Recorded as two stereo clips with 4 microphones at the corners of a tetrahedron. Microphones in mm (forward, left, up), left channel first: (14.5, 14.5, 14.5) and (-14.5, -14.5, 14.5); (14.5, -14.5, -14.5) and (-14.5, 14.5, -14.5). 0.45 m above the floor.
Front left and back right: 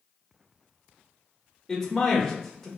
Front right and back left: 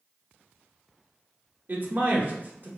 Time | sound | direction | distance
1.7 | a man speaking | 125° left | 1.2 m